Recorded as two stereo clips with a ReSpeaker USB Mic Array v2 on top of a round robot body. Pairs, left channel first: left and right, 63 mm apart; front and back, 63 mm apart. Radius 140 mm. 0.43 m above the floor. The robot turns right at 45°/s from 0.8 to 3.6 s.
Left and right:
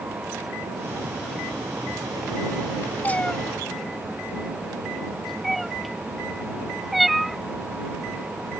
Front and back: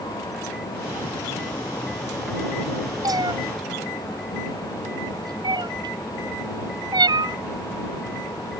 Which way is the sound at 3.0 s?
155° left.